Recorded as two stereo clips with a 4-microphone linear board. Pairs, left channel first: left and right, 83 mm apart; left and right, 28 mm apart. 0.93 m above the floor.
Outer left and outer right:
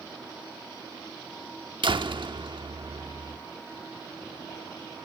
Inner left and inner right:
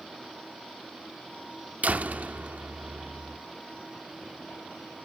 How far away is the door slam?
About 1.1 m.